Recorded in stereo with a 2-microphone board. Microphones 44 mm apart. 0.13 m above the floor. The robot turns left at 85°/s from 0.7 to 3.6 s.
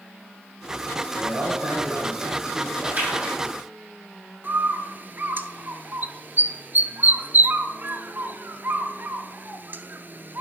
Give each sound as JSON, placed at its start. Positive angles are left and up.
{"t": 1.1, "sound": "a man speaking", "azimuth_deg": -30, "distance_m": 4.0}
{"t": 2.8, "sound": "a splash", "azimuth_deg": -125, "distance_m": 5.0}
{"t": 4.4, "sound": "a bird", "side_deg": -50, "distance_m": 0.6}